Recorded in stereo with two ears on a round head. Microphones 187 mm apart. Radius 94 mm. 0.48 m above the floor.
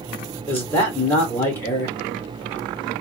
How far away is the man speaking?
About 1.2 m.